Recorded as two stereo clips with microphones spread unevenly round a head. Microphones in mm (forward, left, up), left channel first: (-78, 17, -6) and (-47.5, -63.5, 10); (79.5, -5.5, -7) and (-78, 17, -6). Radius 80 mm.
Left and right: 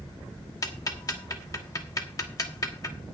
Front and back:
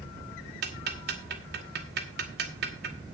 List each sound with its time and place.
0.6 s ticking: 160° left, 2 m